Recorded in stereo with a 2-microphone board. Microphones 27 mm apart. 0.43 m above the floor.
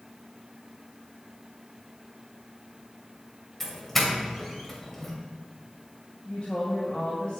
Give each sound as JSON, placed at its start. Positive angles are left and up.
{"t": 3.6, "sound": "a doorbell", "side_deg": 10, "distance_m": 2.5}
{"t": 6.2, "sound": "a woman speaking", "side_deg": 45, "distance_m": 2.5}